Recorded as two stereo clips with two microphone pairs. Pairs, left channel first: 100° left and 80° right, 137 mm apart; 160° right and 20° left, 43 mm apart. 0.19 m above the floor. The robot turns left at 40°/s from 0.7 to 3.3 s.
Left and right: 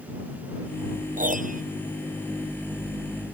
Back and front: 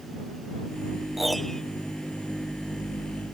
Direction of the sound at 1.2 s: 70° right.